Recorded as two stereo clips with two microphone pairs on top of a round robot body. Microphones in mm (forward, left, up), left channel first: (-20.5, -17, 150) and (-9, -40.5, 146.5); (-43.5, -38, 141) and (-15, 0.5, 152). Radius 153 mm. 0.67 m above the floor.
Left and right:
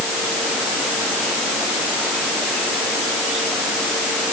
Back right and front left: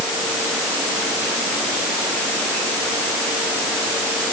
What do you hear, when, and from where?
Only background noise.